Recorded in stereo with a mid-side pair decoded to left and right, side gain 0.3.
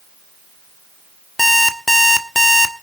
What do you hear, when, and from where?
1.4 s an alarm clock: 10° left, 1.5 m